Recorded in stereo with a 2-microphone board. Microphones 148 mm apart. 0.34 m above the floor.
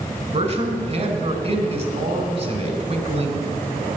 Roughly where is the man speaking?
Right.